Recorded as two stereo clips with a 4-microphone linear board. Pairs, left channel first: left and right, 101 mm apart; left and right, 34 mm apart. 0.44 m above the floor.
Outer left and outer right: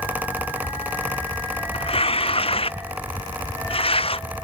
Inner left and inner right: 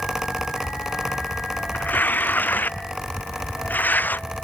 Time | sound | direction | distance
1.7 | tearing paper | 75° left (ahead or behind) | ?